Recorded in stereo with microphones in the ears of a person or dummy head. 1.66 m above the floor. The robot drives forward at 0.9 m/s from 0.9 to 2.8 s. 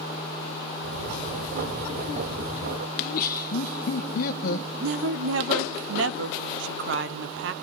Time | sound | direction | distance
3.0 | laughter | 45° left (ahead or behind) | 0.9 m
4.8 | a woman speaking | 80° right | 0.9 m